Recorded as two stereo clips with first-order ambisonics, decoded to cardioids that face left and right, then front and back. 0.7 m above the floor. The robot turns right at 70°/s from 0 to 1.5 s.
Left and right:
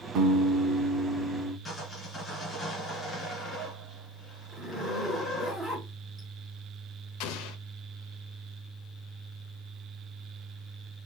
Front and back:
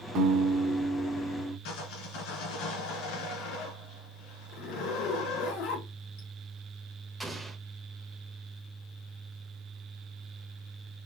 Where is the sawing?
10° left, 2.5 m.